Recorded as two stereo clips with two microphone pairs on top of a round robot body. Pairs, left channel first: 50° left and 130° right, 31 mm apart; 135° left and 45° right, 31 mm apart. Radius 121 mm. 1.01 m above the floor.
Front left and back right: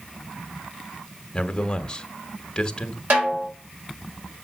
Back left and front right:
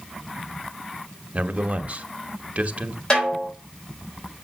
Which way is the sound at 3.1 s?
160° right.